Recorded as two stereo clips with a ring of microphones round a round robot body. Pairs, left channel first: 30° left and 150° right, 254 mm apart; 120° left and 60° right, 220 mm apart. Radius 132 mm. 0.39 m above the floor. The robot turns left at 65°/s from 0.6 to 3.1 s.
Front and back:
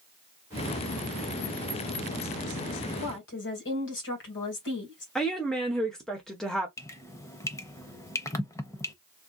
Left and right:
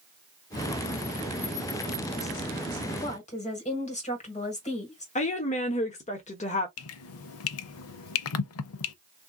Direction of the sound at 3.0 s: 75° left.